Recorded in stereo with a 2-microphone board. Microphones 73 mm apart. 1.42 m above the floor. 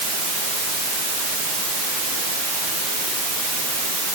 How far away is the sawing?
I don't hear sawing.